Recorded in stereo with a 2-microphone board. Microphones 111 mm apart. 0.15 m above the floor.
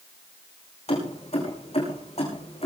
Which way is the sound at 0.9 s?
70° left (ahead or behind).